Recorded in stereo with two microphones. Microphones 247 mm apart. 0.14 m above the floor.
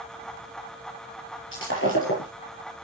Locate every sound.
1.5 s breaking glass: 50° left (ahead or behind), 6.5 m